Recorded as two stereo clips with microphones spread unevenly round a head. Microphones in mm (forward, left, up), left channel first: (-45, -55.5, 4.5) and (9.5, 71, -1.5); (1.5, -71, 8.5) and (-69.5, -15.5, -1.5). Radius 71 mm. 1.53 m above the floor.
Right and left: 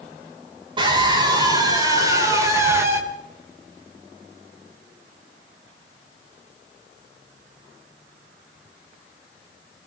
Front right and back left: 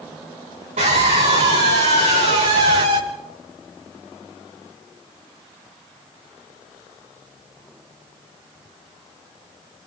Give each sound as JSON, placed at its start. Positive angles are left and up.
{"t": 0.8, "sound": "a scream", "azimuth_deg": 120, "distance_m": 7.5}